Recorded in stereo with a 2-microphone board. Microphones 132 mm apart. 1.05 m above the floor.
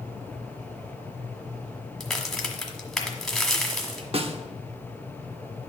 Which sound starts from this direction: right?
A snare drum, at 4.1 s.